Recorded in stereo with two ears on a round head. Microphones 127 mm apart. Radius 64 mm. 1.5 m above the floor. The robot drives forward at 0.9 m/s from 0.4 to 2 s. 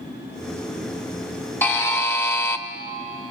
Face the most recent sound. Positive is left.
turn(degrees=15)  # may be behind; listen again after turning